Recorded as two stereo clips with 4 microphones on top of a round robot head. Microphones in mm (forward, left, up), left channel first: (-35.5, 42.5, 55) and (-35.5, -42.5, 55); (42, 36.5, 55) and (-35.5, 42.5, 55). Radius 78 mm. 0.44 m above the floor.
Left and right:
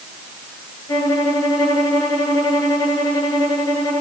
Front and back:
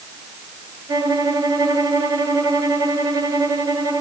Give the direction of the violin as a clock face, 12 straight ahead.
7 o'clock.